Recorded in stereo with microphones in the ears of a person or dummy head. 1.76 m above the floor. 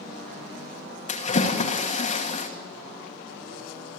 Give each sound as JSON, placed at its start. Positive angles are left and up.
{"t": 1.1, "sound": "a splash", "side_deg": 40, "distance_m": 2.0}